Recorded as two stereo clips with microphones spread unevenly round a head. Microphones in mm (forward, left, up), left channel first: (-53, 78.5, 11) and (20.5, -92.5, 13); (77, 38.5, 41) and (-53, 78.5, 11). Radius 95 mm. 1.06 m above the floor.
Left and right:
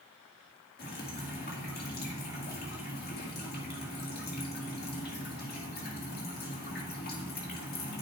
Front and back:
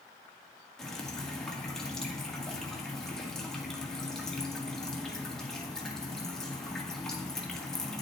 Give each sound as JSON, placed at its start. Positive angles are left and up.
{"t": 0.8, "sound": "dripping", "azimuth_deg": 70, "distance_m": 1.9}